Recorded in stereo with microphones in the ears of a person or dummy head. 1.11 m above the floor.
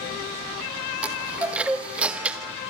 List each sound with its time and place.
1.0 s a chime: 5° right (ahead or behind), 1.4 m